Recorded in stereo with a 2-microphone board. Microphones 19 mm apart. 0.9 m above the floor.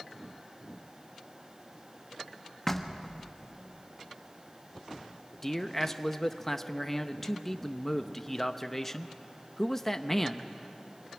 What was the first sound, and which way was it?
Knocking, 10° left (ahead or behind).